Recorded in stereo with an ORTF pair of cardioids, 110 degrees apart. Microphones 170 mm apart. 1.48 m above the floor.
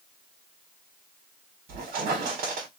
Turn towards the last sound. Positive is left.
turn(degrees=-65)